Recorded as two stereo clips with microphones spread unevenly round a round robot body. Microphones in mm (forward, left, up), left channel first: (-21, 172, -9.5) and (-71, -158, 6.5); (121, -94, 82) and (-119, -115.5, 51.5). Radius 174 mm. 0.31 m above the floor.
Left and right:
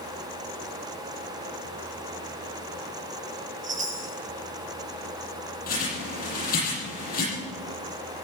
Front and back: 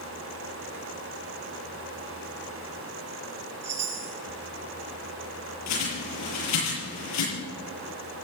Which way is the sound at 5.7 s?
15° left.